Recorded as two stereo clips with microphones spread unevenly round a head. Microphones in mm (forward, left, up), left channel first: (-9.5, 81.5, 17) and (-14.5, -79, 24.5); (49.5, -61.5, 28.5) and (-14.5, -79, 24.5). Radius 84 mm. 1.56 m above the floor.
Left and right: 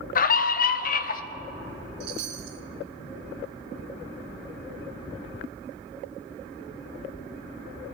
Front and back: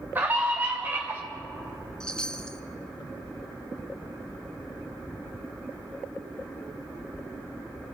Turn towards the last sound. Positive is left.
turn(degrees=-60)